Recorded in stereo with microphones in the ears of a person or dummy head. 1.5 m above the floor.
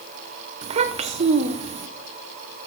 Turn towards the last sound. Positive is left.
turn(degrees=-35)  # may be behind; listen again after turning